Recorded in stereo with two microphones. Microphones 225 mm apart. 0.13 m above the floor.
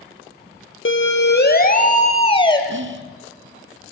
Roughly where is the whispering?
Right.